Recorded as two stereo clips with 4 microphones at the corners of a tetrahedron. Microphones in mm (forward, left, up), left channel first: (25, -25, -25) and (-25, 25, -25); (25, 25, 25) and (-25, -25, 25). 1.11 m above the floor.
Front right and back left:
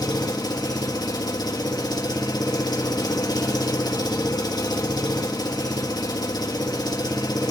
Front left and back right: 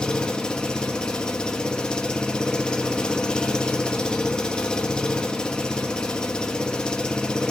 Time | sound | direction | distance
0.0 | an engine running | 35° right | 1.6 m